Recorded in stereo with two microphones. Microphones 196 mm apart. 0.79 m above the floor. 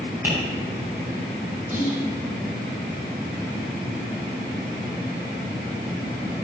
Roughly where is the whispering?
Right.